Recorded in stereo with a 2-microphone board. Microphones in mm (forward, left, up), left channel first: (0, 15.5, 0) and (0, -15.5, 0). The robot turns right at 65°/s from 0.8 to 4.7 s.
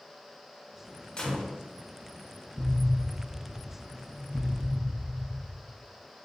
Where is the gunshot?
30° left (ahead or behind), 0.6 m; by 1.6 s 5° left (ahead or behind), 0.6 m.